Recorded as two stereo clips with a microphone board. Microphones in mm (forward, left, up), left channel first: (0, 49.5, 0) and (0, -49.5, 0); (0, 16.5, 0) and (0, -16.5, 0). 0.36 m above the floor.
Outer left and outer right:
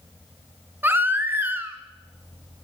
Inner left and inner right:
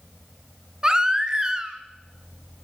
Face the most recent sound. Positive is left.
turn(degrees=-20)  # may be behind; listen again after turning